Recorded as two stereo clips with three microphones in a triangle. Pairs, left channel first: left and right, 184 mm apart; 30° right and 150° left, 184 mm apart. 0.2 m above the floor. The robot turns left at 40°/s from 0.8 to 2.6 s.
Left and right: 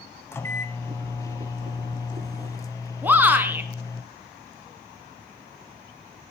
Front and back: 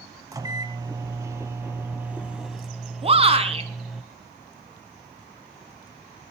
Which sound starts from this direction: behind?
A shout, at 3.0 s.